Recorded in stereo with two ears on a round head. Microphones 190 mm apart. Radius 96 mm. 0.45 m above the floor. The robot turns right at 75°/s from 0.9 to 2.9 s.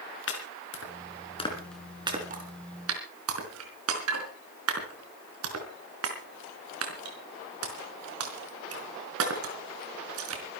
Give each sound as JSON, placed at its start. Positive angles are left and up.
{"t": 0.3, "sound": "chopping", "side_deg": 65, "distance_m": 4.0}